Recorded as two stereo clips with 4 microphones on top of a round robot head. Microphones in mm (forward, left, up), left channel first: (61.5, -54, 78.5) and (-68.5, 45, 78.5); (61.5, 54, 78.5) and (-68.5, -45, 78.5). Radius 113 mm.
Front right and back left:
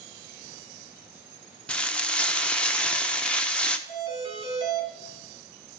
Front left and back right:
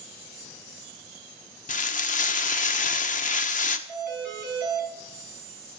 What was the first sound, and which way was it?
Frying, 45° left.